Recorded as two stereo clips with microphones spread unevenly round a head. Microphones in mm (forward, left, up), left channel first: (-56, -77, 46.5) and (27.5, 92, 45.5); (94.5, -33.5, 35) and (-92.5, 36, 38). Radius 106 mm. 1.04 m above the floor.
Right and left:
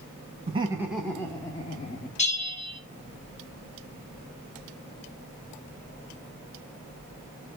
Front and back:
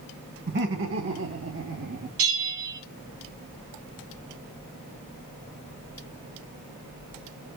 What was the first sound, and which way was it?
Laughter, 120° left.